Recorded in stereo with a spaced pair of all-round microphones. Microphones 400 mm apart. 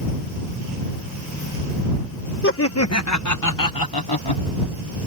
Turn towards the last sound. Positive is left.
turn(degrees=75)  # may be behind; listen again after turning